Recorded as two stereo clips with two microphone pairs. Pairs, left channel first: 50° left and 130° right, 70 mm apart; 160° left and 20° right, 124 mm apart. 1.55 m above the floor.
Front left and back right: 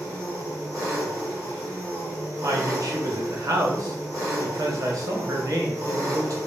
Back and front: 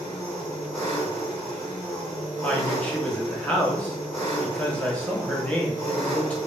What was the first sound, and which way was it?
An engine running, 120° right.